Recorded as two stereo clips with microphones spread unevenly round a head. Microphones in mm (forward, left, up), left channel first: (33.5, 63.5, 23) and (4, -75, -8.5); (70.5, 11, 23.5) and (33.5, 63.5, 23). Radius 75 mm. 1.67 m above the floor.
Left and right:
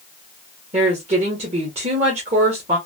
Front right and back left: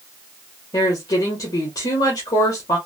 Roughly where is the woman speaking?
Ahead right.